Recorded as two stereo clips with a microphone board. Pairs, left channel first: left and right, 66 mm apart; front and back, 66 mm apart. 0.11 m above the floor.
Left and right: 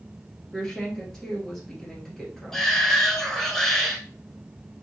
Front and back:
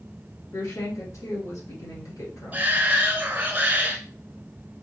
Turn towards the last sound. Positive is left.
turn(degrees=165)